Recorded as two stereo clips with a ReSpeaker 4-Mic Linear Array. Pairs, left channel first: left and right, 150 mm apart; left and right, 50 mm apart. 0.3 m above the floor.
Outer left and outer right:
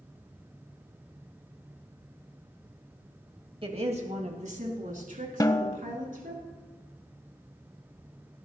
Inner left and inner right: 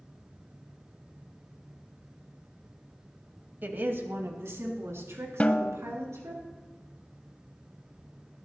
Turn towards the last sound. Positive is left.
turn(degrees=25)  # may be behind; listen again after turning